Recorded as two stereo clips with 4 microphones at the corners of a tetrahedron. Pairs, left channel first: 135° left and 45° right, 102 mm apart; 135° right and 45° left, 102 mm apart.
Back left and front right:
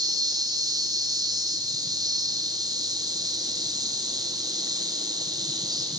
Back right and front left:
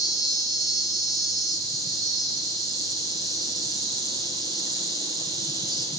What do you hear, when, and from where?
0.0 s an insect: straight ahead, 1.6 m